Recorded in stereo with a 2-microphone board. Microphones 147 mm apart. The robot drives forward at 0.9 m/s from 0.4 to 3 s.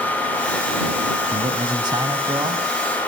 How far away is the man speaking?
About 2.5 m.